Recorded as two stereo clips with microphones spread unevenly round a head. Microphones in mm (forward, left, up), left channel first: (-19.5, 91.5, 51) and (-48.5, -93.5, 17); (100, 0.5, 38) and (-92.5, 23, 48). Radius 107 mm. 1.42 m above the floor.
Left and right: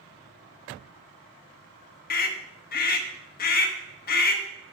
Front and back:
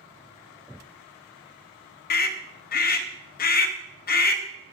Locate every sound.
2.1 s a scream: 35° left, 0.9 m